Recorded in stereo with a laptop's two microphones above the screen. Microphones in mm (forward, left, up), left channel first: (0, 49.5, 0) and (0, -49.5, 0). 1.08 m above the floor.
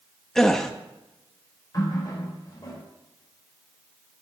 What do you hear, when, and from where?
0.3 s a gasp: 5° left (ahead or behind), 0.8 m
1.7 s a running tap: 40° left (ahead or behind), 3 m